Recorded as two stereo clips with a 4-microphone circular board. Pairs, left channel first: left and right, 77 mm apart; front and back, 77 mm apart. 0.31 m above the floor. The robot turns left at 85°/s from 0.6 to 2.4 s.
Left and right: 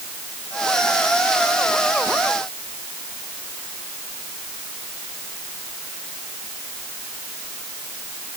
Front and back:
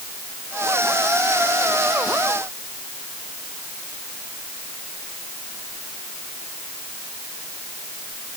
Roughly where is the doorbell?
I don't hear a doorbell.